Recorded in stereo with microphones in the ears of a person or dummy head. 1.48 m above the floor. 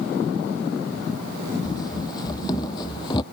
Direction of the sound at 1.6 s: 30° left (ahead or behind).